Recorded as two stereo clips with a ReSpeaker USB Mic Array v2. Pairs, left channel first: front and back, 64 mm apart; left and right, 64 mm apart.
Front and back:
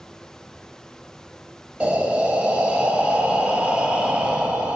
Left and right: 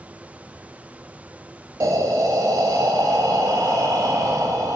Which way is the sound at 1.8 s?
110° right.